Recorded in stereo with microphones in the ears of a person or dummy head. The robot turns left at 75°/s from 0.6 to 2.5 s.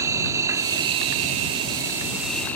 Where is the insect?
50° right; by 2.6 s 170° left.